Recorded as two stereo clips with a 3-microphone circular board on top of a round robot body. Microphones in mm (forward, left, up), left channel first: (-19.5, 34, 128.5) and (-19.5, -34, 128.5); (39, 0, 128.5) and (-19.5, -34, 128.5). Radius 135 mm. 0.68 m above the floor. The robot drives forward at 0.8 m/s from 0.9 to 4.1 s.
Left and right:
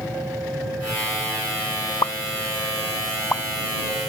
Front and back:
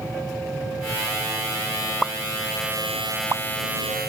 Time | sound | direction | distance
2.0 | a pop | 120° left | ?